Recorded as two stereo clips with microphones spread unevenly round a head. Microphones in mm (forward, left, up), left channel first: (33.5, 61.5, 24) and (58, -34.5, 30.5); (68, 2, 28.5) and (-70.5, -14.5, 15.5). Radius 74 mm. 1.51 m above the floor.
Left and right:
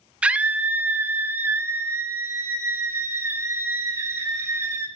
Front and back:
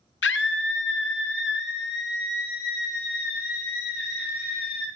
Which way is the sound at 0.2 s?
5° left.